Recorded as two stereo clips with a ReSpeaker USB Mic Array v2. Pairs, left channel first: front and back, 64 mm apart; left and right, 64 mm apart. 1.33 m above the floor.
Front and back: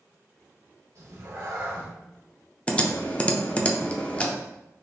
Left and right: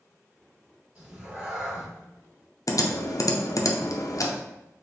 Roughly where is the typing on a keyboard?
Left.